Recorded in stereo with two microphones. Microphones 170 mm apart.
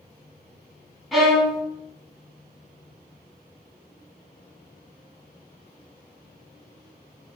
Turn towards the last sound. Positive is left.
turn(degrees=0)  # may be behind; listen again after turning